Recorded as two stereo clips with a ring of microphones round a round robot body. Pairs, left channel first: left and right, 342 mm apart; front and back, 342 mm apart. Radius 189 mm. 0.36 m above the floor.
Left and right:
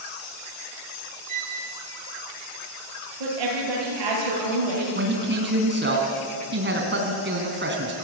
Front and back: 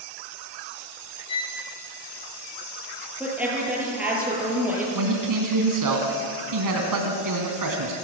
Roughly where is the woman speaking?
Right.